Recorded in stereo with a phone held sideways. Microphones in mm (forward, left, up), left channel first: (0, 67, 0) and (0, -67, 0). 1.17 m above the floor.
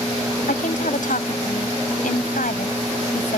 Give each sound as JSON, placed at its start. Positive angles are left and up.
{"t": 0.5, "sound": "a woman speaking", "side_deg": 85}